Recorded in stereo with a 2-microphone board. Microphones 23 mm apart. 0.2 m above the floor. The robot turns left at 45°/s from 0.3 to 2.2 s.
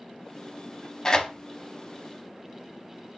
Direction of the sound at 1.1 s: 20° left (ahead or behind).